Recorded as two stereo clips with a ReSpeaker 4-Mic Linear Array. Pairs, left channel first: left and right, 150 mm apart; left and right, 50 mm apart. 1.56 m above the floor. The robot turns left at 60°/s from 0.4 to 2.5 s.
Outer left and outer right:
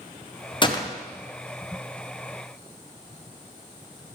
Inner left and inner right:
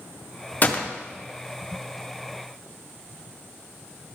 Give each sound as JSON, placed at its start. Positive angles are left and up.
{"t": 0.6, "sound": "a gunshot", "side_deg": 35, "distance_m": 0.7}